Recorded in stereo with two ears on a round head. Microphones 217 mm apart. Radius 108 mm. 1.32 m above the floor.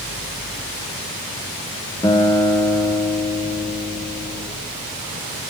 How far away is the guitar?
About 1.6 m.